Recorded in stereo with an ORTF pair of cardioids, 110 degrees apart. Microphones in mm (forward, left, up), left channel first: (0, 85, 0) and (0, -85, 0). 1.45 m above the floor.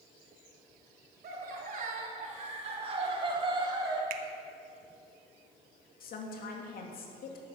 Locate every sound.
1.2 s laughter: 60° right, 3 m; by 4.0 s 25° right, 4.5 m
4.1 s a finger snap: 60° right, 1.1 m
6.0 s a woman speaking: 60° left, 2.5 m